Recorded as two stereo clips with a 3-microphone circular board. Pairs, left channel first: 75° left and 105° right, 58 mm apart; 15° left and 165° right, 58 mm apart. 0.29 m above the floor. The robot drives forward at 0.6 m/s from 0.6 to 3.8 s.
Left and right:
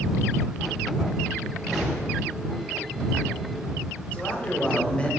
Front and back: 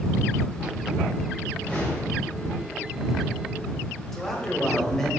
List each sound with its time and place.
1.5 s a whoosh: 25° right, 1.5 m; by 2.3 s 40° right, 1.3 m
4.1 s a man speaking: 85° left, 0.9 m